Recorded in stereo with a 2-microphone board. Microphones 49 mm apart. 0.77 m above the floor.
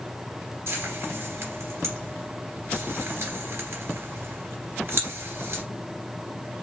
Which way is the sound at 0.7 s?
60° right (ahead or behind).